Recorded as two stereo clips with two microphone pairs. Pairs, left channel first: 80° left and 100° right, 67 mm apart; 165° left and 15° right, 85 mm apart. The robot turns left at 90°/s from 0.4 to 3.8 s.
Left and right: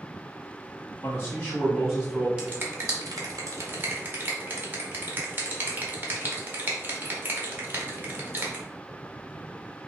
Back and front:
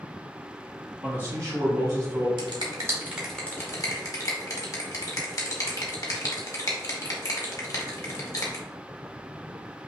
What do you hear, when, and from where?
1.0 s a man speaking: 60° left, 1.9 m; by 2.3 s 55° right, 1.9 m
2.4 s a finger snap: 30° right, 1.1 m; by 8.7 s 155° right, 1.1 m